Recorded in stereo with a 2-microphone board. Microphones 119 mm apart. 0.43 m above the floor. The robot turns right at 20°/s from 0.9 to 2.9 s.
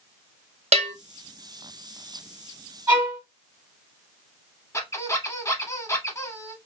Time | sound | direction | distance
0.7 | a bell | 65° right (ahead or behind) | 0.5 m
2.9 | a violin | 20° right (ahead or behind) | 1.7 m
4.7 | a squeak | 25° left (ahead or behind) | 0.7 m